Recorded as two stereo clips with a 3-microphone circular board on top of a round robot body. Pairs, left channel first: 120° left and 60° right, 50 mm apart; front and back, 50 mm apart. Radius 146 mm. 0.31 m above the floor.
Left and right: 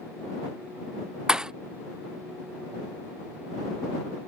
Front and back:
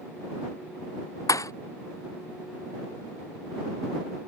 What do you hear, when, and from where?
1.3 s a thud: 20° left